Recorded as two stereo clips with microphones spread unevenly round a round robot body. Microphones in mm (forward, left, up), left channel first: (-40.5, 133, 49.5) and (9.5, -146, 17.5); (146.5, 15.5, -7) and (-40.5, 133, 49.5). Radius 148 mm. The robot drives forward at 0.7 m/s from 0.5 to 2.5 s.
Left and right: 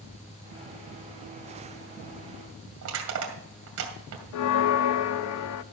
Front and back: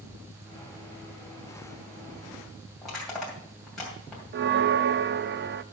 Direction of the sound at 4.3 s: 105° left.